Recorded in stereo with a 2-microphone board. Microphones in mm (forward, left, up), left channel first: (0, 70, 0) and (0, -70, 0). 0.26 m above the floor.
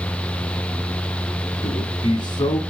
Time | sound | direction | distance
1.6 | a man speaking | 35° left (ahead or behind) | 2 m